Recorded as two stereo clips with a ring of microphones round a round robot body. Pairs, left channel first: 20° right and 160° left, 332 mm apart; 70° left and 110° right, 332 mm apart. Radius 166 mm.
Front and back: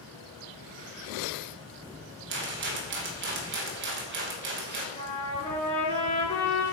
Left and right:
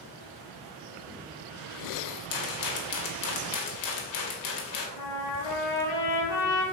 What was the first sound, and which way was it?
A rattle, 100° left.